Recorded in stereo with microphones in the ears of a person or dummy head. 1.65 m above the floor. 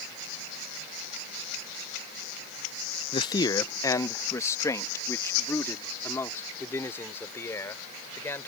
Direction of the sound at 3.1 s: 25° left (ahead or behind).